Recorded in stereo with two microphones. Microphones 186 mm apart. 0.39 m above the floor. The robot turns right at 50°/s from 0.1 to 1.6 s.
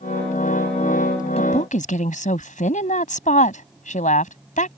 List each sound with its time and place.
1.4 s a woman speaking: 35° left (ahead or behind); by 4.8 s 45° left (ahead or behind)